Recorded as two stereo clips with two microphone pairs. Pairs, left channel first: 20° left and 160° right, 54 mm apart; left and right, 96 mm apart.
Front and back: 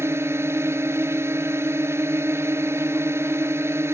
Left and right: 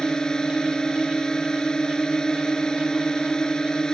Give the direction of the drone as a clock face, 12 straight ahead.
6 o'clock.